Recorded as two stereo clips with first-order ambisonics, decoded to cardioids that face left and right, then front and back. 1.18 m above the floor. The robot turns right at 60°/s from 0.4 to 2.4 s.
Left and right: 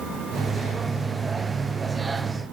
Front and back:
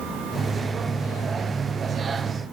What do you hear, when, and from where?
Only background noise.